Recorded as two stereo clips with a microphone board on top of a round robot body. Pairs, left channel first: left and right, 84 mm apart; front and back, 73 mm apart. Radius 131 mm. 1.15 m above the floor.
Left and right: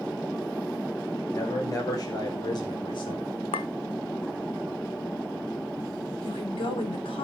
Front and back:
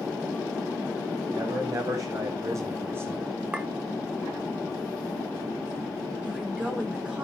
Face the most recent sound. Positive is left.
turn(degrees=105)